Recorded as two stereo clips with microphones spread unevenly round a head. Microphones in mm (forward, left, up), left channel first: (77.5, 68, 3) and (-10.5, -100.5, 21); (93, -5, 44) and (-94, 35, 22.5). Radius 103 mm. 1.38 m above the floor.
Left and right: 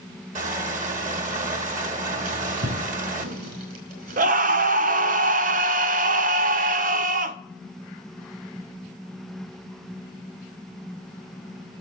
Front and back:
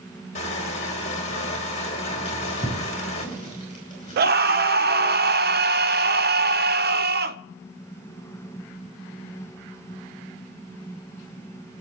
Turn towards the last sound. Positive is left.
turn(degrees=-170)